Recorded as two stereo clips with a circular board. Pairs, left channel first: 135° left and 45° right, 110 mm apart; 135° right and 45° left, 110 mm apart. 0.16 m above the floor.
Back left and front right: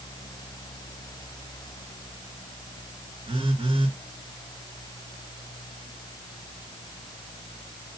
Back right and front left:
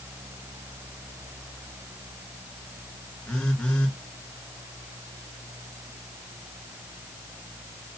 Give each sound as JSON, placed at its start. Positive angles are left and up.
{"t": 3.3, "sound": "a phone buzzing", "azimuth_deg": -55, "distance_m": 2.0}